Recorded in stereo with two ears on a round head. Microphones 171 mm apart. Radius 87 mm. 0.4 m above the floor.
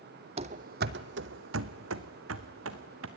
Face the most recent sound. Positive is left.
turn(degrees=-75)  # may be behind; listen again after turning